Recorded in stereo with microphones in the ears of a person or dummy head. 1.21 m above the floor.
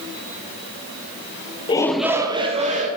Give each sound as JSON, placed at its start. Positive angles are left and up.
{"t": 1.7, "sound": "a shout", "side_deg": 25, "distance_m": 0.6}